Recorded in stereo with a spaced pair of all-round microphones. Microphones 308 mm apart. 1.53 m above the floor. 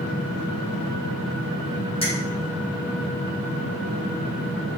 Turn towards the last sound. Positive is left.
turn(degrees=20)  # may be behind; listen again after turning